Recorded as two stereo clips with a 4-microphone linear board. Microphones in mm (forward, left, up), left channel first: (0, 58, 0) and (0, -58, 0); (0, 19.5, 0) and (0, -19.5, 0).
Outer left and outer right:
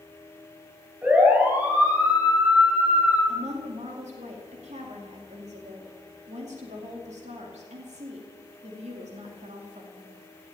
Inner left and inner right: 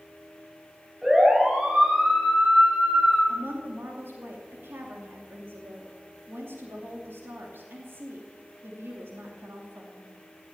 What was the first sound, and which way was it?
A siren, 10° right (ahead or behind).